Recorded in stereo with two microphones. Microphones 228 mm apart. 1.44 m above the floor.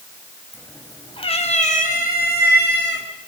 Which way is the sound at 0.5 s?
10° left (ahead or behind).